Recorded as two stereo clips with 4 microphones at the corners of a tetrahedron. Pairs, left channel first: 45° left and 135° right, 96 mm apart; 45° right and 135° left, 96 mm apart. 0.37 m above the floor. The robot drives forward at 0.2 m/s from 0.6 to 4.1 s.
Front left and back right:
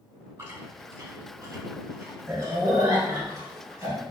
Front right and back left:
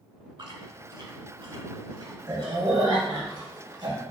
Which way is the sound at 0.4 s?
175° left.